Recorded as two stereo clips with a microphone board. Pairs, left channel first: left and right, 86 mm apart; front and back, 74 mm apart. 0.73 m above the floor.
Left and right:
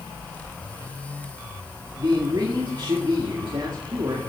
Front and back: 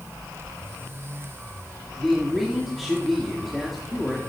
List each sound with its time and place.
2.0 s a man speaking: 90° right, 1.7 m